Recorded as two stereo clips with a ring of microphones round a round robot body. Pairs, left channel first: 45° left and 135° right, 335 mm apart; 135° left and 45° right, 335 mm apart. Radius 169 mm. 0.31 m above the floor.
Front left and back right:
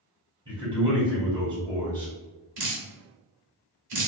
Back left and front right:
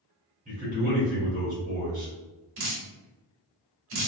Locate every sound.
0.5 s a man speaking: 75° right, 1.6 m
2.6 s dripping: 90° right, 1.0 m